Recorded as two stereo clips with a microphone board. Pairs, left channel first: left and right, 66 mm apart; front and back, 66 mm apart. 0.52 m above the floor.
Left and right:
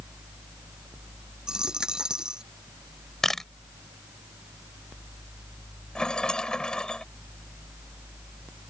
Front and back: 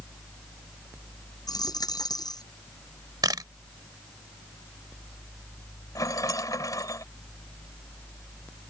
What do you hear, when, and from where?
1.5 s a dropped coin: 10° right
3.2 s a camera shutter: 175° left
6.0 s a rattle: 15° left